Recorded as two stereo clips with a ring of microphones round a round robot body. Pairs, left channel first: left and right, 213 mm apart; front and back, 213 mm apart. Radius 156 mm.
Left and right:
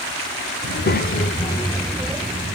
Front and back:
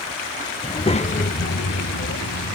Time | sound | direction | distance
0.6 | a child speaking | 70° left | 1.0 m